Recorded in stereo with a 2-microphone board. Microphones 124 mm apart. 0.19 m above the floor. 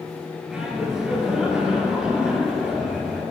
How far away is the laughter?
About 3 m.